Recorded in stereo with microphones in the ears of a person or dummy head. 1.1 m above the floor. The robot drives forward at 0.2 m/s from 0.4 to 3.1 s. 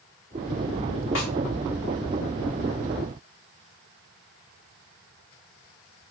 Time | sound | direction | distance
1.1 | a snare drum | 65° left (ahead or behind) | 1.2 m